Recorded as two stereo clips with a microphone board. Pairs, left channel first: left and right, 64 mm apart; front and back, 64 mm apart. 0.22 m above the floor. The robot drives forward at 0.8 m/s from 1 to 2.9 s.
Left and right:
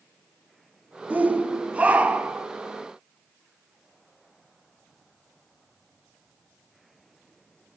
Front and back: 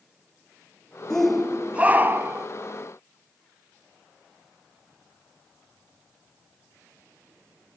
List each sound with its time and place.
1.1 s a shout: 70° right, 1.0 m; by 2.5 s 155° right, 1.4 m